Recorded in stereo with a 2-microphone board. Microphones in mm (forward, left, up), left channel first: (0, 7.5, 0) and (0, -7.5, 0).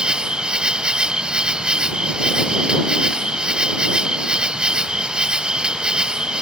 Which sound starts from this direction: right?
An insect, at 0.0 s.